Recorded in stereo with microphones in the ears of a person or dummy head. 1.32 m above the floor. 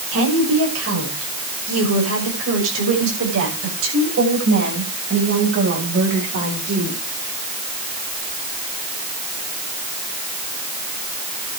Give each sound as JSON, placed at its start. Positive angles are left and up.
{"t": 0.1, "sound": "a woman speaking", "side_deg": -85, "distance_m": 7.0}